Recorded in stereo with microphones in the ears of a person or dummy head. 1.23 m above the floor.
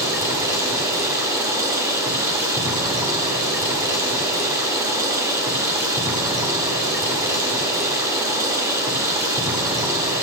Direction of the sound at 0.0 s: 20° right (ahead or behind).